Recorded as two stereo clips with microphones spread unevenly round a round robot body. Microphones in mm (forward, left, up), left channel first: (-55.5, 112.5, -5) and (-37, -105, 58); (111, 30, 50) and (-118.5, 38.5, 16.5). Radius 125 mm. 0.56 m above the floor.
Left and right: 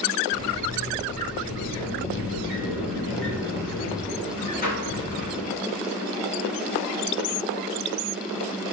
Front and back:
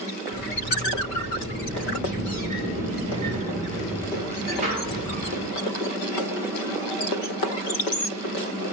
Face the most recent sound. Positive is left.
turn(degrees=125)